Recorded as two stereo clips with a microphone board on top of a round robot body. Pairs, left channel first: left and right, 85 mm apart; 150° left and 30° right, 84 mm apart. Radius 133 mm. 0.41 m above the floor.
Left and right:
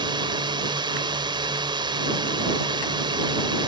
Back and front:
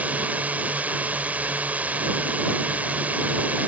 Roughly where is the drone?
Right.